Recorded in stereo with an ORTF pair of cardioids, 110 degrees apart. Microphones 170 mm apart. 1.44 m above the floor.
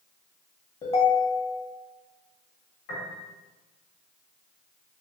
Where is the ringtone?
40° left, 1.0 m.